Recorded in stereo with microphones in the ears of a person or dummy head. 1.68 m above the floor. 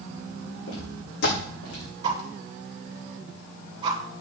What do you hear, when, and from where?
0.7 s footsteps: 70° left (ahead or behind), 7 m; by 1.9 s 75° left (ahead or behind), 6 m
2.0 s a whoosh: 30° right (ahead or behind), 2.5 m